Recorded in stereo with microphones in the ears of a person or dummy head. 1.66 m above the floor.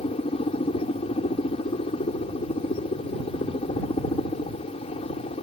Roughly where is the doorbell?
No doorbell in this recording.